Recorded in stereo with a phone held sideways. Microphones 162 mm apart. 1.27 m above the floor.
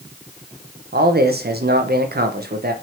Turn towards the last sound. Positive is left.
turn(degrees=-75)  # may be behind; listen again after turning